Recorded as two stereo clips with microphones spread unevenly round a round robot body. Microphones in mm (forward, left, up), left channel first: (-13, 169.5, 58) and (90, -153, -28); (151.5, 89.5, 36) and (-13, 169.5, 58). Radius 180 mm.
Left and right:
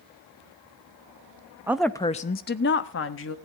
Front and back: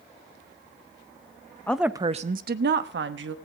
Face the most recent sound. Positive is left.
turn(degrees=170)